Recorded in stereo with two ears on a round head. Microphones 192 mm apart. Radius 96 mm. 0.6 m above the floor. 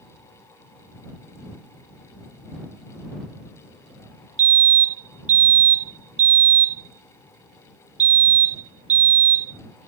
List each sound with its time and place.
4.4 s a fire alarm: 35° right (ahead or behind)